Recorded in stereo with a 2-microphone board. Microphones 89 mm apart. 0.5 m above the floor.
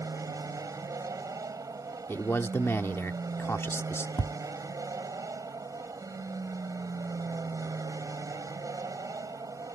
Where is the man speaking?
30° left (ahead or behind).